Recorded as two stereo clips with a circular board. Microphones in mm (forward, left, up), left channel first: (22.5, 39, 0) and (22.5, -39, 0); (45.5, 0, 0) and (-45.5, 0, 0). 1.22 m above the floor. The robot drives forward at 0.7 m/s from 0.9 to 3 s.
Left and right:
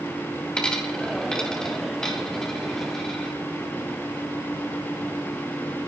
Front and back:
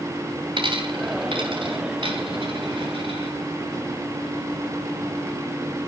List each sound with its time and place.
0.6 s a dropped coin: 165° left, 2.5 m; by 3.3 s 170° left, 4 m